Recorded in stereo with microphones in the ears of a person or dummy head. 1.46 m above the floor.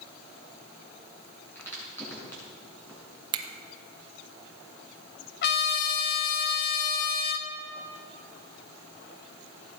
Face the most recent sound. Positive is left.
turn(degrees=55)  # may be behind; listen again after turning